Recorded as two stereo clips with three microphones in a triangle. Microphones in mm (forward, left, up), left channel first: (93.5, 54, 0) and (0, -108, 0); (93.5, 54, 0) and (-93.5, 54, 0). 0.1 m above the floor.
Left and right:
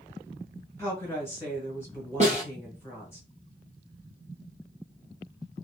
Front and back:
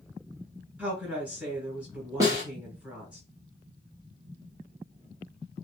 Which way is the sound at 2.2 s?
120° right.